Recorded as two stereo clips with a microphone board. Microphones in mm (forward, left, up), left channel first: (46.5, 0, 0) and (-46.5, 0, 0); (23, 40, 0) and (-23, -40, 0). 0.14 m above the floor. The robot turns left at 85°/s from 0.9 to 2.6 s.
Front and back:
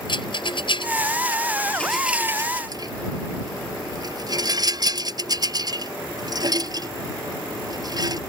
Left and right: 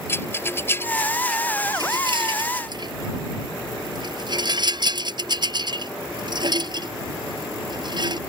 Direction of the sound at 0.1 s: Straight ahead.